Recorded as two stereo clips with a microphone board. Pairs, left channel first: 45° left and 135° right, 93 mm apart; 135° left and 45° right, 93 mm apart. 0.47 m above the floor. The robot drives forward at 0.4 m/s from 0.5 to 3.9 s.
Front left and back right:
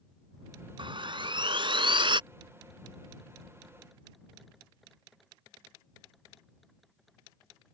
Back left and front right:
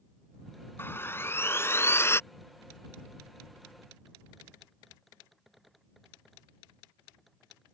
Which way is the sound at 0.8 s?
160° right.